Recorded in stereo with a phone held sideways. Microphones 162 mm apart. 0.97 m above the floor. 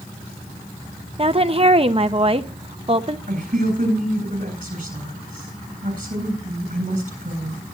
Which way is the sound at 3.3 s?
50° right (ahead or behind).